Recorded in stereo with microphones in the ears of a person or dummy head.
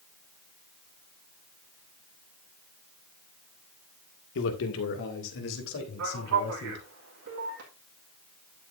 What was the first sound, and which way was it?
A man speaking, 75° left (ahead or behind).